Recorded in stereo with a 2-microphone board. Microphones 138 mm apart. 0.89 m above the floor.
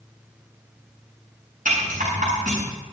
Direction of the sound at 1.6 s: 85° right.